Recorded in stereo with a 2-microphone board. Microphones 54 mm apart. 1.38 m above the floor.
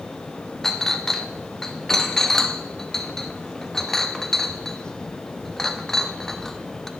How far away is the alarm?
No alarm in this recording.